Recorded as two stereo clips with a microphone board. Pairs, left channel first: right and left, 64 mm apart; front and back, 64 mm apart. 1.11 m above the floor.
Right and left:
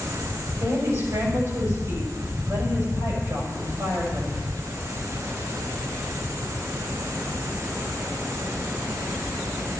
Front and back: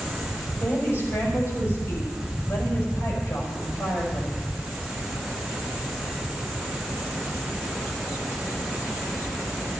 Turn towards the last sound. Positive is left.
turn(degrees=55)